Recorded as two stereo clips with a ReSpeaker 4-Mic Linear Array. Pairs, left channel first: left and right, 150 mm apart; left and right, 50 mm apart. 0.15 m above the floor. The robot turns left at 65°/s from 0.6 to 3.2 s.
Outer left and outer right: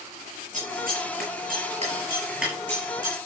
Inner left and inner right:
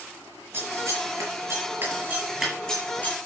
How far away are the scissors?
About 5.5 m.